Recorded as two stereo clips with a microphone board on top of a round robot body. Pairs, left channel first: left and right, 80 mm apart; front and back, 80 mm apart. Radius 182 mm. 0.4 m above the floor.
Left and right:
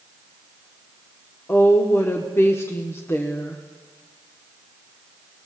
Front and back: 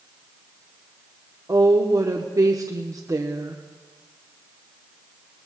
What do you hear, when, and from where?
1.5 s a woman speaking: 145° left, 1.2 m